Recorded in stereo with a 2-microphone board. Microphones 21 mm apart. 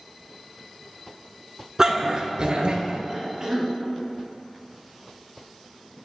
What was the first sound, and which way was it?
A dog barking, 30° right (ahead or behind).